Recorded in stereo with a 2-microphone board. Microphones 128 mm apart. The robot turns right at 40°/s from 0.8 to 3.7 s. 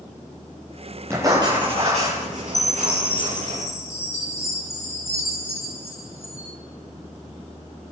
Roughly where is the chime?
Behind left.